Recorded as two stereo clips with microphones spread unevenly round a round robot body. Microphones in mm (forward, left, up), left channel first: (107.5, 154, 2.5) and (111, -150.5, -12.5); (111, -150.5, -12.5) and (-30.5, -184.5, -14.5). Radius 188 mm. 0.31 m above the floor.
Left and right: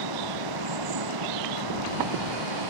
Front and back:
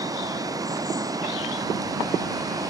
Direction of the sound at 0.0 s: 100° right.